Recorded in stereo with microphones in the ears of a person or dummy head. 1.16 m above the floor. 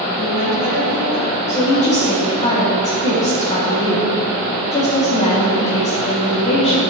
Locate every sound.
0.2 s a woman speaking: 60° right (ahead or behind), 3 m; by 1.3 s 55° right (ahead or behind), 2 m
1.5 s a woman speaking: 25° left (ahead or behind), 2 m